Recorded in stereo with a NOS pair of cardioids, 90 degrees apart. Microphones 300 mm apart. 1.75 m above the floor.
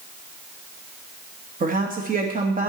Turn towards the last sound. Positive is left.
turn(degrees=-25)